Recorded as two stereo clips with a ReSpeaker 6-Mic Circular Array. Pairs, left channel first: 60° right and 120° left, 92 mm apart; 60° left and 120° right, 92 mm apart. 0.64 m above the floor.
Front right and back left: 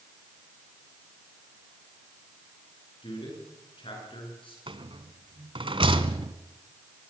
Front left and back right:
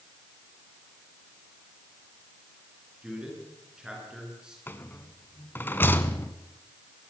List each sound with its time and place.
3.0 s a man speaking: 40° right, 9 m
4.7 s a rattle: 125° left, 1.1 m